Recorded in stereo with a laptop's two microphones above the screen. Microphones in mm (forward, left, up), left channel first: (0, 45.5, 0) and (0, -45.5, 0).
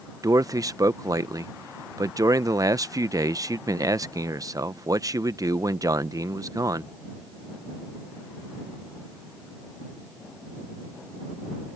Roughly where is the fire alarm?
No fire alarm in this recording.